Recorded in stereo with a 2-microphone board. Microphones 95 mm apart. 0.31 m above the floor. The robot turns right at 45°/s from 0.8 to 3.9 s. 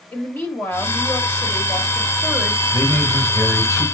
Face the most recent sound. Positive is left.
turn(degrees=-130)